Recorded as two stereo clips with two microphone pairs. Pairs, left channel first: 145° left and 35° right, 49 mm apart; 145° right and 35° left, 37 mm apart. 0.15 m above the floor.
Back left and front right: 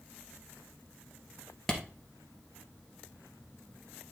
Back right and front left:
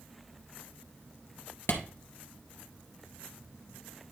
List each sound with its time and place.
1.7 s a clap: 135° right, 2.0 m